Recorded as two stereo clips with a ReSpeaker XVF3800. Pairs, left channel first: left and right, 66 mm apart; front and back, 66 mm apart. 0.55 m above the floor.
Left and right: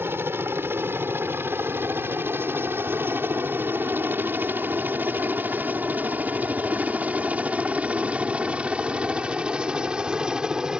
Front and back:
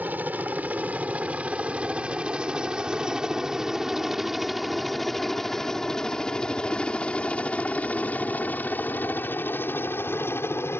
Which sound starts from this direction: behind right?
A helicopter, at 0.0 s.